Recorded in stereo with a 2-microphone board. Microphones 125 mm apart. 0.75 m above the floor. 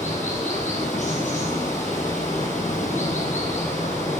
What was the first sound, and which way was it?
Running water, 70° left (ahead or behind).